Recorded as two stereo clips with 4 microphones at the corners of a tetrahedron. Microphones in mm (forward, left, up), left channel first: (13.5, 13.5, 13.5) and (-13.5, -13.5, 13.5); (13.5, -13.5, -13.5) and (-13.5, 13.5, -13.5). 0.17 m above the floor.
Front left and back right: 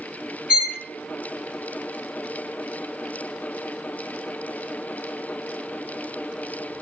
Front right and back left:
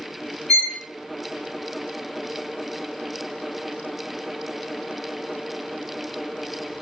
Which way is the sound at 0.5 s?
95° right.